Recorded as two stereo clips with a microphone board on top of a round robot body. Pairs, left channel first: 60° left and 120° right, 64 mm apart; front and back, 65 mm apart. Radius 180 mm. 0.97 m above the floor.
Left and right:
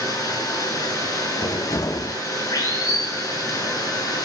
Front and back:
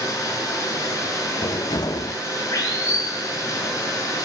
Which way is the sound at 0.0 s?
35° left.